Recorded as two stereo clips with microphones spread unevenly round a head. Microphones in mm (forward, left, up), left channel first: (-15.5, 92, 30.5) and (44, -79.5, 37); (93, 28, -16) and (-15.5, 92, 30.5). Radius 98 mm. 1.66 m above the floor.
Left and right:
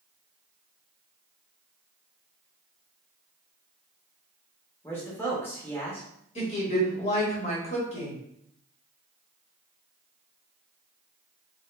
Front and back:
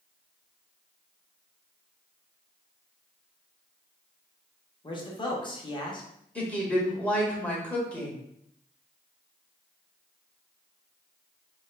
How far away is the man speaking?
About 0.8 m.